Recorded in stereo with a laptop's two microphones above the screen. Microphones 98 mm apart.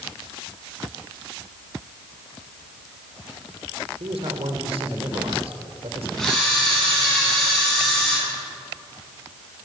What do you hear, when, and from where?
4.0 s a man speaking: 85° right, 3 m
6.2 s a camera shutter: 5° left (ahead or behind), 8.5 m